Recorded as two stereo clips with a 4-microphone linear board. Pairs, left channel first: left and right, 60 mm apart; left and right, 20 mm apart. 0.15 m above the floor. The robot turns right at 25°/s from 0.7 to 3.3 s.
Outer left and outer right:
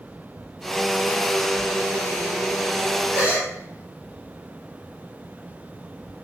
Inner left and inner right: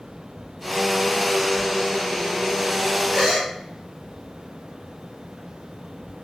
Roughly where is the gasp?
Right.